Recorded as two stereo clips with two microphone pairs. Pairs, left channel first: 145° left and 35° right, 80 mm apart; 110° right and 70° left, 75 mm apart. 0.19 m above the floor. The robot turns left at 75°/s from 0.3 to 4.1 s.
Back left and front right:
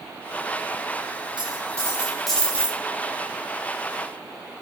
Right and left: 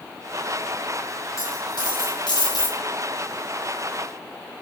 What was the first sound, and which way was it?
A dropped coin, 55° right.